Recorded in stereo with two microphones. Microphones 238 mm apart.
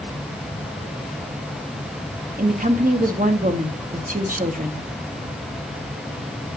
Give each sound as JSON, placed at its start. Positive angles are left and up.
{"t": 2.4, "sound": "a woman speaking", "side_deg": -35, "distance_m": 1.3}